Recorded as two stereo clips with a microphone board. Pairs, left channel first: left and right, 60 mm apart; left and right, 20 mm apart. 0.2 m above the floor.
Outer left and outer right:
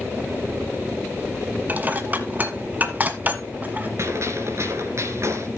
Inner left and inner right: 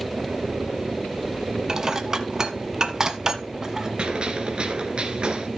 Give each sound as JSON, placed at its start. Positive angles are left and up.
{"t": 1.7, "sound": "dishes clattering", "side_deg": -30, "distance_m": 1.3}
{"t": 4.0, "sound": "a gunshot", "side_deg": -55, "distance_m": 2.5}